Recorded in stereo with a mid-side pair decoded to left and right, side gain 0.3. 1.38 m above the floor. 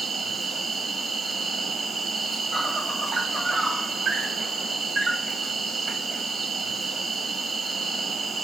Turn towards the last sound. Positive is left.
turn(degrees=-70)